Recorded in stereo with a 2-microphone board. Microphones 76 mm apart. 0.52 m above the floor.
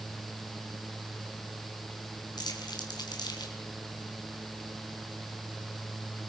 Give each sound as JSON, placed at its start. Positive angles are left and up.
{"t": 2.4, "sound": "crumpling", "side_deg": 65, "distance_m": 4.5}